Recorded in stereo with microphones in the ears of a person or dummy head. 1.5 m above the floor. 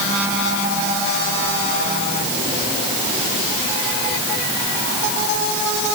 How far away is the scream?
I don't hear a scream.